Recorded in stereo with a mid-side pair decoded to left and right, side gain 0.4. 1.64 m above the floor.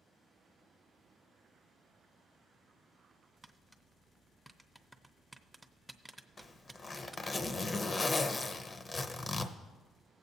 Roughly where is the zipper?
Ahead left.